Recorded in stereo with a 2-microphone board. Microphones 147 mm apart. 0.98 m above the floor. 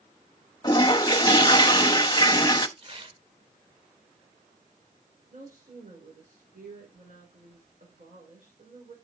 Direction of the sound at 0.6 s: 30° left (ahead or behind).